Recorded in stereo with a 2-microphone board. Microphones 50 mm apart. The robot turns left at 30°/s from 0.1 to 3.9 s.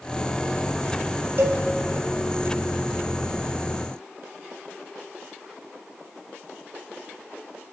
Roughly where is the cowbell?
Right.